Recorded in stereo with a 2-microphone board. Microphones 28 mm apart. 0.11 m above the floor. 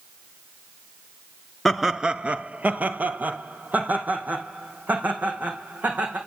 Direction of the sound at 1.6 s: Centre (ahead or behind).